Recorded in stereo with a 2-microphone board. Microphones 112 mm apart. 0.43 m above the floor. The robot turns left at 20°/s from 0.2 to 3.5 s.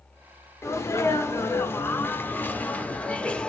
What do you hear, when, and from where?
0.6 s a sneeze: 25° left (ahead or behind), 0.7 m; by 3.5 s 10° left (ahead or behind), 0.7 m